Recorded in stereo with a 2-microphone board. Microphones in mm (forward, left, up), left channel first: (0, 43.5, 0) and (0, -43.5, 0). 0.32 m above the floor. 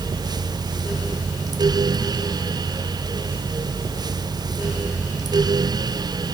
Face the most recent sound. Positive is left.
No sound to turn to.